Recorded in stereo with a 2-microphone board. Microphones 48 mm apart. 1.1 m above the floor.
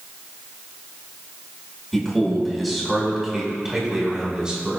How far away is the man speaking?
About 4.5 m.